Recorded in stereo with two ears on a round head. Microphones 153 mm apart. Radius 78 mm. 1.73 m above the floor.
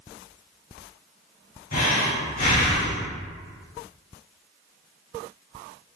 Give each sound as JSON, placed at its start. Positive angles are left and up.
{"t": 1.7, "sound": "breathing", "side_deg": 45, "distance_m": 1.8}